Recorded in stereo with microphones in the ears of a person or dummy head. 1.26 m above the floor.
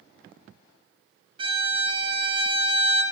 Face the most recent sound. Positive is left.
turn(degrees=-30)  # may be behind; listen again after turning